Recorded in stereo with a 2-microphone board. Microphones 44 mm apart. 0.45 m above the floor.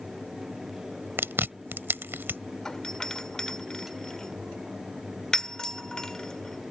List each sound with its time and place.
1.2 s chewing: 55° right (ahead or behind)
2.6 s a doorbell: 15° left (ahead or behind)